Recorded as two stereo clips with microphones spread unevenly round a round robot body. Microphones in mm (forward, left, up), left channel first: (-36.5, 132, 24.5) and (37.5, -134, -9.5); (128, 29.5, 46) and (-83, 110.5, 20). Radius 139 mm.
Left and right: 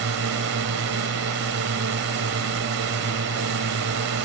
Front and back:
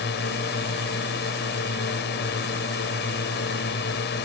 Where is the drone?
55° right.